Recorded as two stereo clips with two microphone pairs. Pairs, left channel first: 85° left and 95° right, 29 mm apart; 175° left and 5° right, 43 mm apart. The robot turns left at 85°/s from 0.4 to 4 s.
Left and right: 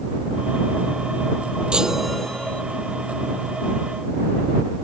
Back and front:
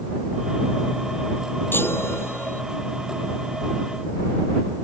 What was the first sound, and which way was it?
A chime, 150° right.